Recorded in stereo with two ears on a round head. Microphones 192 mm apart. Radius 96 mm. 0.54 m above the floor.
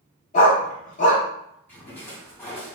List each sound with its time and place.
0.3 s a dog barking: 35° left (ahead or behind), 1.2 m
1.7 s a splash: 10° left (ahead or behind), 1.7 m